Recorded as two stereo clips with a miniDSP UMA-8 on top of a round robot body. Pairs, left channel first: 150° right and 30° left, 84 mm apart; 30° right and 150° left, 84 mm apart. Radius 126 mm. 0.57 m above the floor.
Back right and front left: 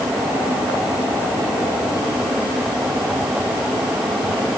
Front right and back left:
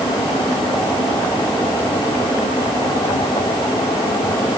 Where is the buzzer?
I don't hear a buzzer.